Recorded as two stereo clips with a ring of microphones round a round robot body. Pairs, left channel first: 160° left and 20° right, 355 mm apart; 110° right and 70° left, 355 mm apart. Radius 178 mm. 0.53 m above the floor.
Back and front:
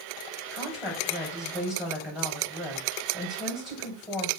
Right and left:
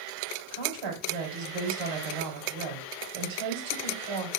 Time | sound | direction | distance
0.5 | a woman speaking | 65° left | 2.5 m